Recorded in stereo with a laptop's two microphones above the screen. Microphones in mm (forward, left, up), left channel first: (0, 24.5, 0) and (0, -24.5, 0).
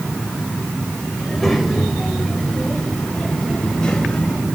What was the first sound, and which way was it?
A child speaking, centre (ahead or behind).